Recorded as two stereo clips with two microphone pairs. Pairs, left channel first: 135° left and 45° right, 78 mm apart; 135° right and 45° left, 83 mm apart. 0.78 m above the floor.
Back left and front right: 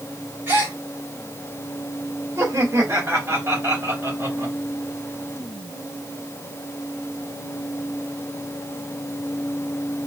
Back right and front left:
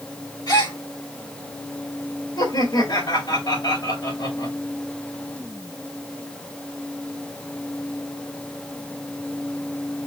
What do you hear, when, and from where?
0.5 s a gasp: 105° right, 2 m
2.4 s laughter: 100° right, 2.5 m